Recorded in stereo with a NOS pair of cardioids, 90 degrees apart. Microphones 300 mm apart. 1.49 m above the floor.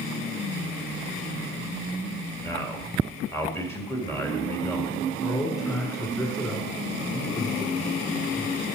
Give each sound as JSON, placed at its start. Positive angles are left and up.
{"t": 2.4, "sound": "a man speaking", "azimuth_deg": 10, "distance_m": 2.5}
{"t": 5.2, "sound": "a man speaking", "azimuth_deg": 10, "distance_m": 4.5}